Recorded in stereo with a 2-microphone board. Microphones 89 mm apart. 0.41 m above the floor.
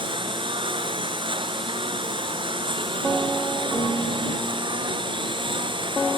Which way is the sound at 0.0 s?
70° right (ahead or behind).